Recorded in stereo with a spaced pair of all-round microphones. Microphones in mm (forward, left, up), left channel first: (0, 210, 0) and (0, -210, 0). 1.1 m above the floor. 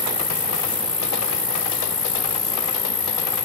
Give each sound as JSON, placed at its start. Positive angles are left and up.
{"t": 0.0, "sound": "an insect", "side_deg": 40}